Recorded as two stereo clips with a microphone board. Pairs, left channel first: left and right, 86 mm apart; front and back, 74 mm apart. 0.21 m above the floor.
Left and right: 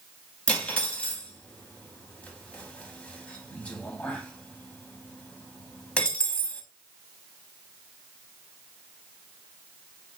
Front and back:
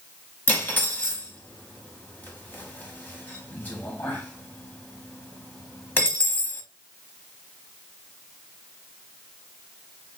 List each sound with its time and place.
0.5 s cutlery clinking: 30° left, 0.6 m